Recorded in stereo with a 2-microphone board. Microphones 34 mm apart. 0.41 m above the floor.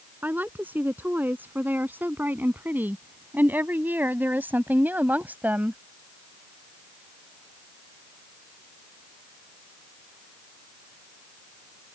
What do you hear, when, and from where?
0.2 s a woman speaking: 65° right (ahead or behind); by 5.8 s 60° right (ahead or behind)